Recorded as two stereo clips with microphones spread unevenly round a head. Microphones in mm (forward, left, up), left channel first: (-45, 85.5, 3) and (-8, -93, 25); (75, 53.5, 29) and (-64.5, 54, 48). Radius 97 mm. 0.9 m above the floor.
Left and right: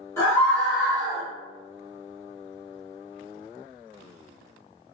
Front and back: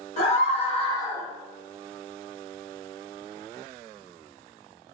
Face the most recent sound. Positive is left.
turn(degrees=-70)